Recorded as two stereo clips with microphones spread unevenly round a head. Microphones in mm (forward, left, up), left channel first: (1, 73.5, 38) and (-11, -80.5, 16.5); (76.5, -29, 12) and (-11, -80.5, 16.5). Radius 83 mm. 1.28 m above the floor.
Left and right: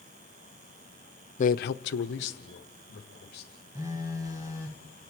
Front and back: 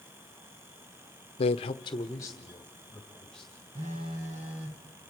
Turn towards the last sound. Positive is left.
turn(degrees=-170)